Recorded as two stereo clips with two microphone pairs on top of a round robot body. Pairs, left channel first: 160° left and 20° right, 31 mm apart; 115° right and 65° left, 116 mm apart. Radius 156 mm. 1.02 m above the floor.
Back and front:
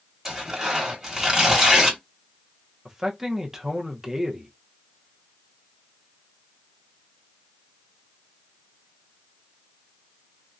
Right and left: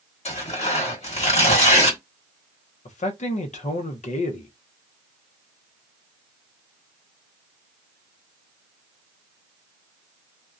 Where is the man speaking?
100° right, 0.7 m.